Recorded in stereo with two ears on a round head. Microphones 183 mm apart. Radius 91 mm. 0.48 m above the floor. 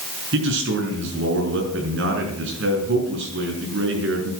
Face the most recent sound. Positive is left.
turn(degrees=-60)  # may be behind; listen again after turning